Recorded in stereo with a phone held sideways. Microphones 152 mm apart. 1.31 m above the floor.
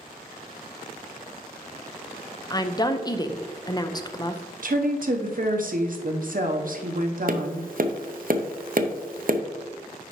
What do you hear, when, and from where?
2.5 s a woman speaking: 25° left (ahead or behind), 0.6 m
4.6 s a woman speaking: 60° right (ahead or behind), 0.8 m
7.3 s tapping: 60° right (ahead or behind), 0.5 m